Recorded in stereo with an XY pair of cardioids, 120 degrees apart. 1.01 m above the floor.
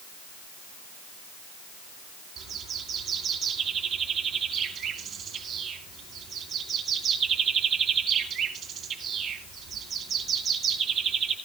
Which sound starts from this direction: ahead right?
A bird, at 2.4 s.